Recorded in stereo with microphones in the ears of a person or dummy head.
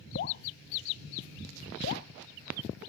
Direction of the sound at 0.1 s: 50° left (ahead or behind).